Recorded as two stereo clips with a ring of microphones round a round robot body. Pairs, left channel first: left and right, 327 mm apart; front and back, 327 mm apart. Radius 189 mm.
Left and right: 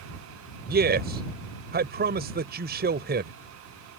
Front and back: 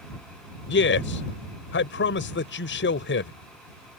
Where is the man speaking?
40° right.